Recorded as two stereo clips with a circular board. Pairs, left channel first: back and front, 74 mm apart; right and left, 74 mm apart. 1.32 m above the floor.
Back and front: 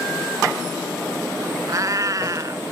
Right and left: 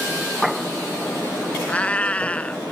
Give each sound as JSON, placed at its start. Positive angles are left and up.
{"t": 1.7, "sound": "a cat meowing", "azimuth_deg": -25}